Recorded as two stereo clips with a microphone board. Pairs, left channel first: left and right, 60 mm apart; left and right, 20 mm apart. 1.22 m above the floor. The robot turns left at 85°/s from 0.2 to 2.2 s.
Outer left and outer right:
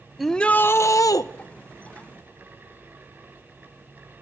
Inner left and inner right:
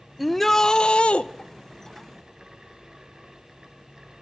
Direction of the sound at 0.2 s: Straight behind.